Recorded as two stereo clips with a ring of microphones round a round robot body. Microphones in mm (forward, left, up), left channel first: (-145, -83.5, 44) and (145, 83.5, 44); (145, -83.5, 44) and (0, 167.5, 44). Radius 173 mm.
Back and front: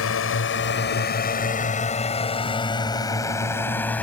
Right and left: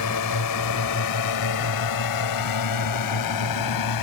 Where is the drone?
100° right; by 4.0 s 65° right.